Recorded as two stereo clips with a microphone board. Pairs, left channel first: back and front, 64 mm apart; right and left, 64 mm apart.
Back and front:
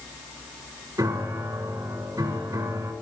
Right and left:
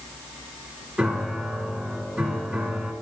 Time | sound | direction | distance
1.0 | a piano | 5° left | 1.9 m